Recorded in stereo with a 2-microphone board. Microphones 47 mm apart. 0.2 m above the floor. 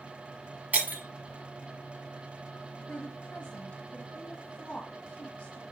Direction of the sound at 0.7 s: 40° right (ahead or behind).